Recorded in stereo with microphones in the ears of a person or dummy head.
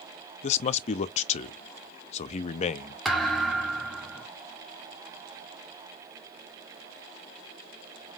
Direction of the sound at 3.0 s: Centre (ahead or behind).